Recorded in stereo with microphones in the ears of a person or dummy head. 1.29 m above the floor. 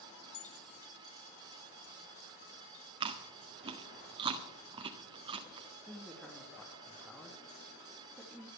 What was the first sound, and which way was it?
Keys jangling, 70° left (ahead or behind).